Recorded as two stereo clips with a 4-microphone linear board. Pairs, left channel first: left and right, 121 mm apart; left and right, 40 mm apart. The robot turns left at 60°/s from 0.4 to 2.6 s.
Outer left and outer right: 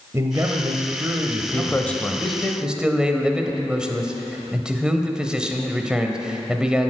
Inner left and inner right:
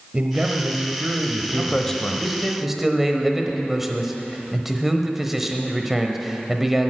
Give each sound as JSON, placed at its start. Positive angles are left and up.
{"t": 0.1, "sound": "a man speaking", "side_deg": -25, "distance_m": 0.9}
{"t": 1.5, "sound": "a man speaking", "side_deg": 20, "distance_m": 0.9}